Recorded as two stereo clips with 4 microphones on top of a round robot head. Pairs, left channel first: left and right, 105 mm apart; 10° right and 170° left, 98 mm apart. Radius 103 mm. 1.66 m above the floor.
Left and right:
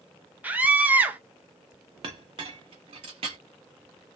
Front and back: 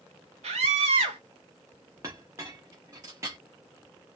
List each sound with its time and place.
0.4 s a scream: 165° right, 1.1 m
2.0 s a clink: 120° right, 1.1 m